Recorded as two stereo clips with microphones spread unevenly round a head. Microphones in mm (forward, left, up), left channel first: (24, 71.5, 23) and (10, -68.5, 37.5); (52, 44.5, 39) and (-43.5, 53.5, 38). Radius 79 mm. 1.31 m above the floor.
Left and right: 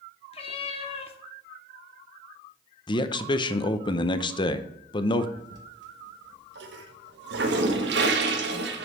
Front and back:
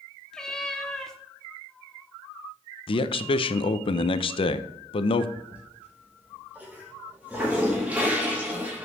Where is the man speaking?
25° left, 0.7 m.